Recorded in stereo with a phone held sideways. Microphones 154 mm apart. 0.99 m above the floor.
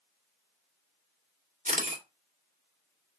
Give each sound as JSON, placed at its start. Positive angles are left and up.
{"t": 1.6, "sound": "a camera shutter", "side_deg": -50, "distance_m": 1.9}